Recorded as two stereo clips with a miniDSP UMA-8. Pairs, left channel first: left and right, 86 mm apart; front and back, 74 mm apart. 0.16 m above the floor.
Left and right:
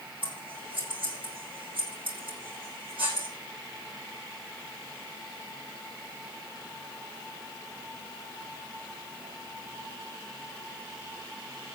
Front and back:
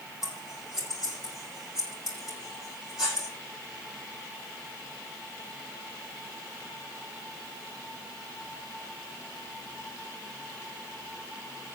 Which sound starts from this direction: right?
Scissors, at 0.2 s.